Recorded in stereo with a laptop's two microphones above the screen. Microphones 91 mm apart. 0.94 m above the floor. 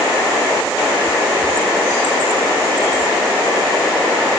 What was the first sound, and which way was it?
Only background noise.